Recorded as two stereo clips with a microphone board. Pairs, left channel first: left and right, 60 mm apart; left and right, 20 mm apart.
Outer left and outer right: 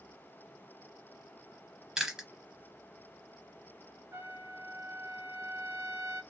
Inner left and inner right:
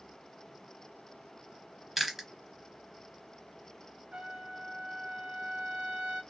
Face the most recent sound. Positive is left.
turn(degrees=-60)  # may be behind; listen again after turning